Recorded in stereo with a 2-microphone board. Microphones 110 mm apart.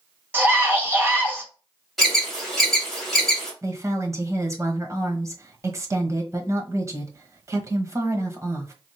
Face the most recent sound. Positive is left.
turn(degrees=-30)  # may be behind; listen again after turning